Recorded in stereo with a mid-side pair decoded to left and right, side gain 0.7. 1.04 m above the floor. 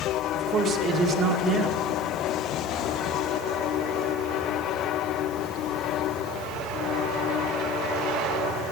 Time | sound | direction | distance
0.3 | a man speaking | 35° right | 2 m